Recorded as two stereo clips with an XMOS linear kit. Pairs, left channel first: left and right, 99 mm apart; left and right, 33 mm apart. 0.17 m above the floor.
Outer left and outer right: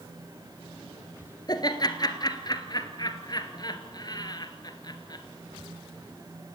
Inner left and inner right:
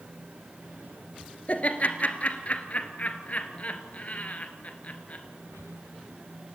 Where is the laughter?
45° left (ahead or behind), 2.5 m.